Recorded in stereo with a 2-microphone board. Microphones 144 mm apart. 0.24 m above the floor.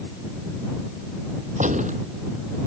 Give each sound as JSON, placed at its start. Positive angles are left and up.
{"t": 1.6, "sound": "a gunshot", "side_deg": -60}